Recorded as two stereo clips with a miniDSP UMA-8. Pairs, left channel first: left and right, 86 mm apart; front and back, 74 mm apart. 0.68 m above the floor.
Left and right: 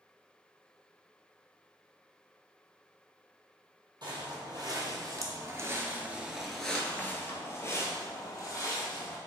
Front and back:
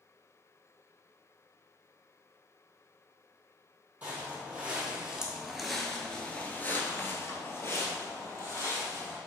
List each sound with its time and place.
4.0 s footsteps: 115° right, 1.3 m; by 9.2 s 50° left, 1.7 m